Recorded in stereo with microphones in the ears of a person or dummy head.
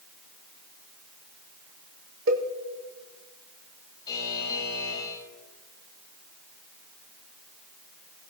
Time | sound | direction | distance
2.3 | a cowbell | 70° right (ahead or behind) | 1.7 m
4.1 | a buzzer | 30° left (ahead or behind) | 8.5 m